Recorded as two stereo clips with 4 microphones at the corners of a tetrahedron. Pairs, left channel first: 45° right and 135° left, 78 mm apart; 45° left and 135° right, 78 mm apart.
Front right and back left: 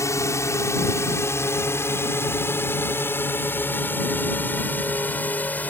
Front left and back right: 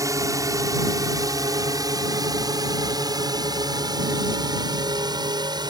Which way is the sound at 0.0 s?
95° right.